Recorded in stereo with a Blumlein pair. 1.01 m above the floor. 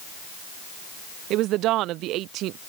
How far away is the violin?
No violin in this recording.